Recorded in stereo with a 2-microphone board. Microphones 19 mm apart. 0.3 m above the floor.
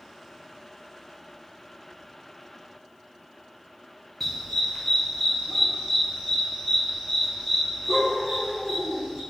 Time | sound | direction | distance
4.2 | a dog barking | 15° left (ahead or behind) | 2.5 m